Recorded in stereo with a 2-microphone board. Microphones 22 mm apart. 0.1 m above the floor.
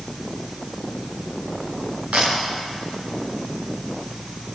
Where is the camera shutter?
65° right (ahead or behind), 7 m.